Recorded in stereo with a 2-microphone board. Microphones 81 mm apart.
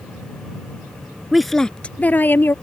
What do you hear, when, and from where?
1.3 s a woman speaking: 5° right (ahead or behind); by 2.5 s 30° left (ahead or behind)